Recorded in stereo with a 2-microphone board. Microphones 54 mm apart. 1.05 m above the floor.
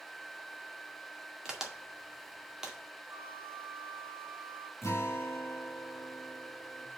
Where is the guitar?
55° left (ahead or behind), 3 m.